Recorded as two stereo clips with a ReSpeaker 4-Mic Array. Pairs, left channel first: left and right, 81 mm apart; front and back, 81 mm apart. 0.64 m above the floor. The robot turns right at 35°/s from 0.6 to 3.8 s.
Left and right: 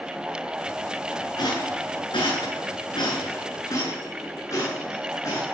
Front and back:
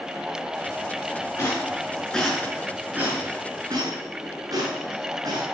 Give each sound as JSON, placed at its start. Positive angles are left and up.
{"t": 1.4, "sound": "a rattle", "azimuth_deg": 60, "distance_m": 8.0}